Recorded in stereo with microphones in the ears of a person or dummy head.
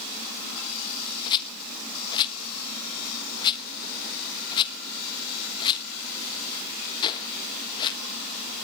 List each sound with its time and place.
1.3 s a rattle: 25° left (ahead or behind), 1.2 m